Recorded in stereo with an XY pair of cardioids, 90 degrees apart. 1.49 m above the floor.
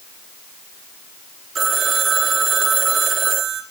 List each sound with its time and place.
1.6 s a phone ringing: 50° right, 3 m